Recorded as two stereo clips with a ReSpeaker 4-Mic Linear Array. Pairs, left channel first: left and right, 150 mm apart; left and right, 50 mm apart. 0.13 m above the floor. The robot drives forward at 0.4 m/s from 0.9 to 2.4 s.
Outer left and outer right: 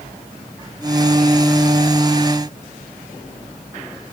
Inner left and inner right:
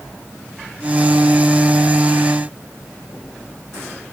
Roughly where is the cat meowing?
I don't hear a cat meowing.